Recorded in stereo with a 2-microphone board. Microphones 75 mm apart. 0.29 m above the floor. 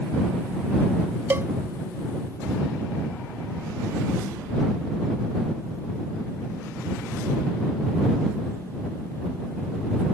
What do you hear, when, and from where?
1.3 s a cowbell: 35° right (ahead or behind)